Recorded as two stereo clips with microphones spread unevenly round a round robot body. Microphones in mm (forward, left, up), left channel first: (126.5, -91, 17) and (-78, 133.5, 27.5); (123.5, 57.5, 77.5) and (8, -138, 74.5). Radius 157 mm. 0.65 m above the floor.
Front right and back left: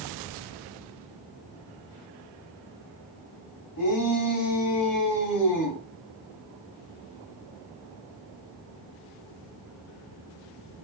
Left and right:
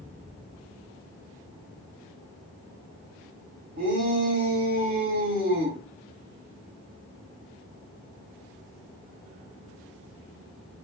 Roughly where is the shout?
Right.